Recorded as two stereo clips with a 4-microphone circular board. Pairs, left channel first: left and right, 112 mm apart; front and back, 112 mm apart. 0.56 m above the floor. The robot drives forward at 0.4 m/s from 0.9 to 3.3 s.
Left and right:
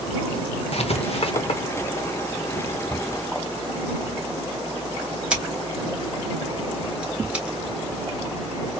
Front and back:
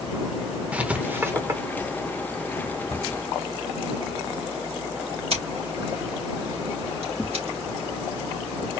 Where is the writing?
105° left, 0.9 m; by 1.6 s 120° left, 1.0 m.